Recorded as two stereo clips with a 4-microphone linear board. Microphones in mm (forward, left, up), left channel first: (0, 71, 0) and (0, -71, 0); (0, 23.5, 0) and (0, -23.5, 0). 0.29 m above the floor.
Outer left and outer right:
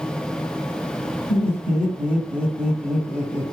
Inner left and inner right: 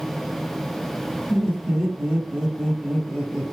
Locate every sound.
1.3 s laughter: 10° right (ahead or behind), 1.9 m